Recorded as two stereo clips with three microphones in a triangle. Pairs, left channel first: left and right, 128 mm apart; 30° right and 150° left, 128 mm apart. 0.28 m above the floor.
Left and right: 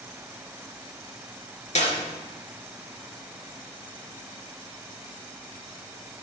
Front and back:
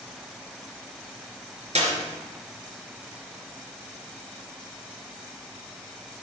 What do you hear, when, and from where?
1.8 s a clap: 115° left, 3.5 m